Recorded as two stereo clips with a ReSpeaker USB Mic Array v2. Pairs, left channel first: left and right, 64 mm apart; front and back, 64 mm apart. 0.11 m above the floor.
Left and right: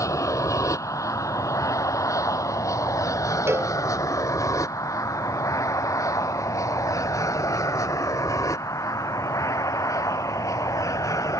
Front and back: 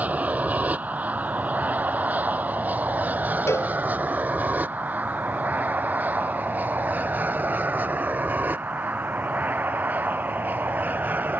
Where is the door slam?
No door slam in this recording.